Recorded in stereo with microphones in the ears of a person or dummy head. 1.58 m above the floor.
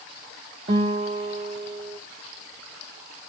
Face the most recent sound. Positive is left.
turn(degrees=-30)  # may be behind; listen again after turning